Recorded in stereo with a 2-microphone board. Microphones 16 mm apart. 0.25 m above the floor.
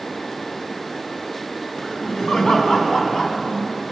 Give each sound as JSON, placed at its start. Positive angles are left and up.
{"t": 1.8, "sound": "laughter", "side_deg": 55, "distance_m": 2.5}